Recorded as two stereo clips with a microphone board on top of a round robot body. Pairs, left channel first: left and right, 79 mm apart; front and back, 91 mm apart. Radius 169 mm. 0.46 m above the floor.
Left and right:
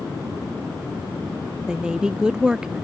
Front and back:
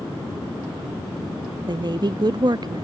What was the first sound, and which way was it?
A woman speaking, 170° right.